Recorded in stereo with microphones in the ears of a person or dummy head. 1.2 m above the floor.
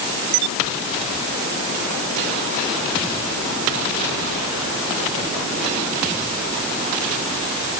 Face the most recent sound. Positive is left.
No sound to turn to.